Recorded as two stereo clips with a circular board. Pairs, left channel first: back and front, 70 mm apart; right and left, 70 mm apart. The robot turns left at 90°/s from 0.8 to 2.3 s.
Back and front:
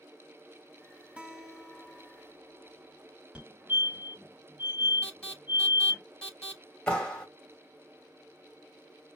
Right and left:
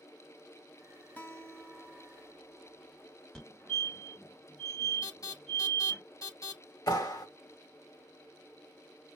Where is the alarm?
105° right, 4 m.